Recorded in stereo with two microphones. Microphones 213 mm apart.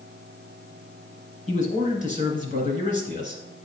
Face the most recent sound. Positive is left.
turn(degrees=35)  # may be behind; listen again after turning